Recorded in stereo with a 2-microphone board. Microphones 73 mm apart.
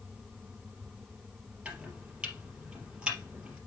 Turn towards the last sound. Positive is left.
turn(degrees=-15)  # may be behind; listen again after turning